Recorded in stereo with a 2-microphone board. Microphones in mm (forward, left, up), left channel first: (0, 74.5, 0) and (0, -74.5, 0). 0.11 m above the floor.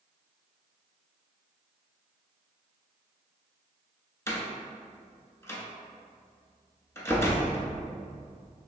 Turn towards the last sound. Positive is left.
turn(degrees=20)  # may be behind; listen again after turning